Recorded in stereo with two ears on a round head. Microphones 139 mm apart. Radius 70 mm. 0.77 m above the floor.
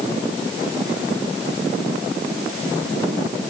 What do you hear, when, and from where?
Only background noise.